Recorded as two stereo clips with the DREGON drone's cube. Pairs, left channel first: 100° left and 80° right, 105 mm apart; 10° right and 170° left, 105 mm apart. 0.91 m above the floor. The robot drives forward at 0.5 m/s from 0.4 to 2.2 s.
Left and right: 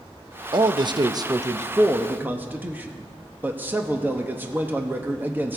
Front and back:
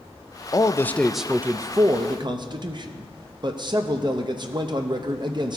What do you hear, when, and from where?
0.5 s a man speaking: 60° right, 0.6 m; by 5.6 s 150° right, 0.8 m